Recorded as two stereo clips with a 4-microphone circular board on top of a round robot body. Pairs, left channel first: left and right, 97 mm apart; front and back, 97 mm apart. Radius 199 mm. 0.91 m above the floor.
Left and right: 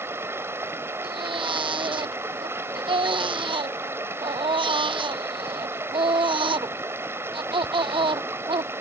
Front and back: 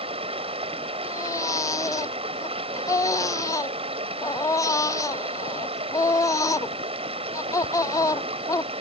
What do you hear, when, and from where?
0.0 s running water: 155° right
1.0 s a baby crying: 60° right